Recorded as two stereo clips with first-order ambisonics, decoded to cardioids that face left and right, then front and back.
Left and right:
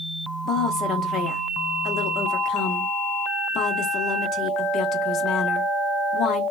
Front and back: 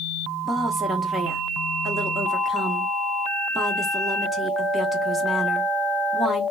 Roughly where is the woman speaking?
Left.